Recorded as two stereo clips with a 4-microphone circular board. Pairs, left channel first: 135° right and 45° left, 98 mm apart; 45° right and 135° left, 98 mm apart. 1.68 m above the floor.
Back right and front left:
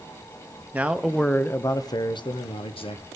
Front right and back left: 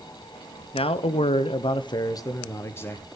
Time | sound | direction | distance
0.7 | a man speaking | 30° right | 1.0 m